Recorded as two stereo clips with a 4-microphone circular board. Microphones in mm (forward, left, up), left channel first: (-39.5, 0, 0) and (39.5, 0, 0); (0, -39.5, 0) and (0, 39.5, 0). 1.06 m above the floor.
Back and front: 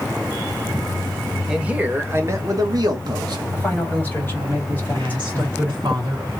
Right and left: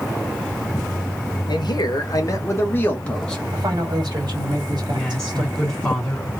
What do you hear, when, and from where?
1.5 s a man speaking: 80° right, 1.2 m; by 3.4 s 10° right, 1.3 m
3.5 s a man speaking: 115° left, 1.6 m
4.8 s a woman speaking: 10° right, 1.9 m